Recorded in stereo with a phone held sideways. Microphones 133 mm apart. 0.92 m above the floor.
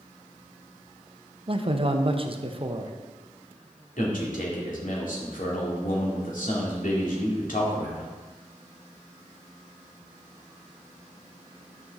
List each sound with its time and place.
1.5 s a man speaking: 40° right (ahead or behind), 0.7 m
4.0 s a man speaking: 70° left (ahead or behind), 2.5 m